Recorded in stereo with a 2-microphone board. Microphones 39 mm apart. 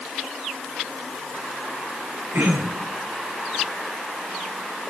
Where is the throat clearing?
70° right (ahead or behind), 8 m.